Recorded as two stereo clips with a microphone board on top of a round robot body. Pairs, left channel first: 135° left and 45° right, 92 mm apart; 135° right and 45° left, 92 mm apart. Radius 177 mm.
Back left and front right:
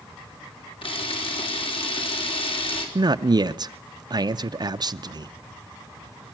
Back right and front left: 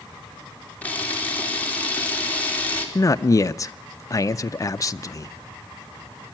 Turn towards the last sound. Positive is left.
turn(degrees=-85)